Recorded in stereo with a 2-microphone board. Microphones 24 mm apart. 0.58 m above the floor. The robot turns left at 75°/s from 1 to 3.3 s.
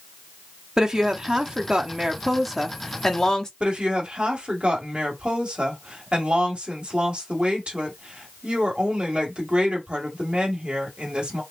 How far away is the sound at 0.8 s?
About 0.8 m.